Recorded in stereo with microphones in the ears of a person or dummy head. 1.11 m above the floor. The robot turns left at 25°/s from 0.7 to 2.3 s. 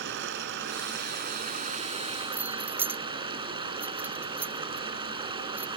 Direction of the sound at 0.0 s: 115° right.